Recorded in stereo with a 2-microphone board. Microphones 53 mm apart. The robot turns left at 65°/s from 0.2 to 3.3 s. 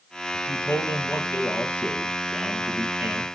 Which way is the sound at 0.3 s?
125° left.